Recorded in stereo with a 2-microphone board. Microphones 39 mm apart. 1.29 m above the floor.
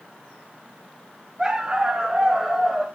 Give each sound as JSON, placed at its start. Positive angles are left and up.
{"t": 1.4, "sound": "a dog barking", "side_deg": -20, "distance_m": 4.0}